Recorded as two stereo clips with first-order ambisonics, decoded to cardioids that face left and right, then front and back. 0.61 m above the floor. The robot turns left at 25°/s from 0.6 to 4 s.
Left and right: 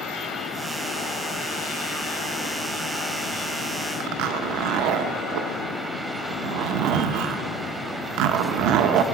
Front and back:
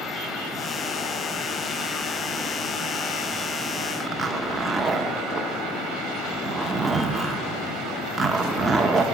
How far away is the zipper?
About 0.8 m.